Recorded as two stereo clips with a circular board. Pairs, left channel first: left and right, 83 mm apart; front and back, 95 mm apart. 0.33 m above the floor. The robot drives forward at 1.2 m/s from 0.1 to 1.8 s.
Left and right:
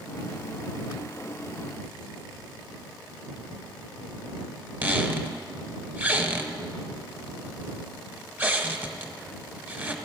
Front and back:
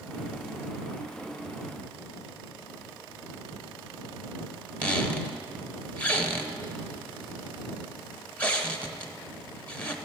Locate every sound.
4.8 s a squeak: 60° right, 1.0 m